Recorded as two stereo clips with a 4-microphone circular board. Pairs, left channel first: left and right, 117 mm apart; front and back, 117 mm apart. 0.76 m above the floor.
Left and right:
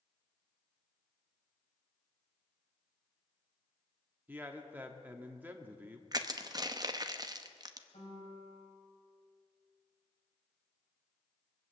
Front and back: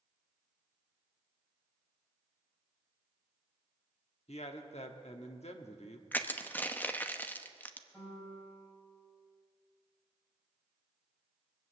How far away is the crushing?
About 0.8 m.